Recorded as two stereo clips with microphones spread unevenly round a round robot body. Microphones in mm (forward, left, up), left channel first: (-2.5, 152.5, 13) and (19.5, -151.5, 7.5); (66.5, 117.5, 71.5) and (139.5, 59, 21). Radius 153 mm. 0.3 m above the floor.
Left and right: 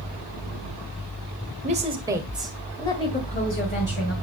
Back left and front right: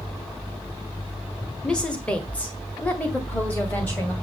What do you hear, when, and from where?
1.6 s a woman speaking: 75° right, 1.5 m; by 4.1 s 50° left, 2.5 m